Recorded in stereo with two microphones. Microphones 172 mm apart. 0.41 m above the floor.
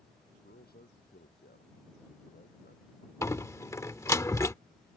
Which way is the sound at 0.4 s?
65° left (ahead or behind).